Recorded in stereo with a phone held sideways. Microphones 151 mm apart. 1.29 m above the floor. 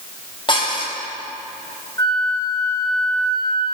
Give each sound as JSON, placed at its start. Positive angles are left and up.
{"t": 0.5, "sound": "dishes clattering", "side_deg": 35, "distance_m": 4.0}
{"t": 2.0, "sound": "a flute", "side_deg": 25, "distance_m": 1.4}